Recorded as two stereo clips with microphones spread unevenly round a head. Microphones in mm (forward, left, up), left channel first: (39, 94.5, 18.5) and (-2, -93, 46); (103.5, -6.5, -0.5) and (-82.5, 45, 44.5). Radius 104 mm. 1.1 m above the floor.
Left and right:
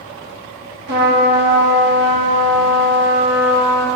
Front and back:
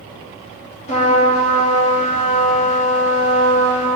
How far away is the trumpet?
About 1.6 m.